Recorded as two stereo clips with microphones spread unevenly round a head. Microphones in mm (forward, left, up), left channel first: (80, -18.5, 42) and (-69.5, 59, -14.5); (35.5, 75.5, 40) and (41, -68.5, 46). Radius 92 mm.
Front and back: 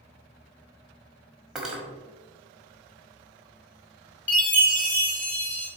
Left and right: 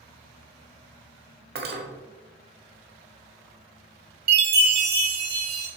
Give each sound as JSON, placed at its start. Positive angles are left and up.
{"t": 1.6, "sound": "cutlery clinking", "azimuth_deg": -115, "distance_m": 1.1}
{"t": 4.3, "sound": "a chime", "azimuth_deg": -110, "distance_m": 1.5}